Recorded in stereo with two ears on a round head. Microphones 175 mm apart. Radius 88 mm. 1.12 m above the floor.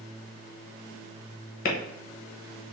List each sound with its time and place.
1.6 s a clap: 50° left (ahead or behind), 0.8 m